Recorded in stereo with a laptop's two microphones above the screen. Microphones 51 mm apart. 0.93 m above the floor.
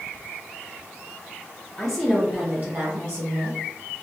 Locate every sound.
1.8 s a woman speaking: 15° left (ahead or behind), 0.6 m; by 3.6 s 65° right (ahead or behind), 1.1 m